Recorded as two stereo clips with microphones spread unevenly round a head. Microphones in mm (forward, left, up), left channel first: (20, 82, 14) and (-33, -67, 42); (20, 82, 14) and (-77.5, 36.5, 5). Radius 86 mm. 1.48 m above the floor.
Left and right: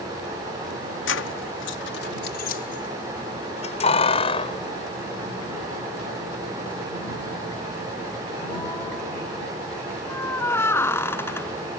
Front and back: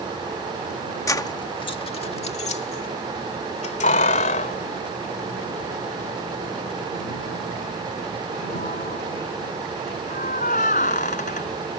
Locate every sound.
1.1 s keys jangling: 80° left; by 11.7 s 5° right